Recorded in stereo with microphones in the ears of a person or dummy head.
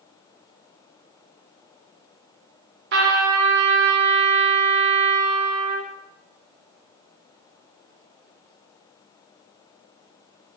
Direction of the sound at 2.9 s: 60° right (ahead or behind).